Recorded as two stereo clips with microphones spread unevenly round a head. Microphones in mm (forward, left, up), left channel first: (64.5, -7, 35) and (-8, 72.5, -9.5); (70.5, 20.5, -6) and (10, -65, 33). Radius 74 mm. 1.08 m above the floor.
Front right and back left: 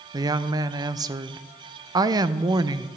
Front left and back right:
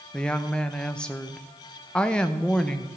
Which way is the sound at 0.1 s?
120° left.